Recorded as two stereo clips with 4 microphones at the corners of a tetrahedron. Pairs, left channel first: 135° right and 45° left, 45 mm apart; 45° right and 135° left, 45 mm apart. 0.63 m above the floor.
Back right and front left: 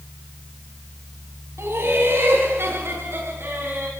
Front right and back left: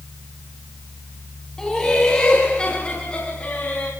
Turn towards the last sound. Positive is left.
turn(degrees=15)